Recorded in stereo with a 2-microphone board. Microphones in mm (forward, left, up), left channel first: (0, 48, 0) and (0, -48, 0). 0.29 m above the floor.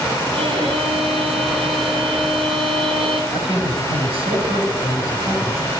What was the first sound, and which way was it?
A violin, 75° right (ahead or behind).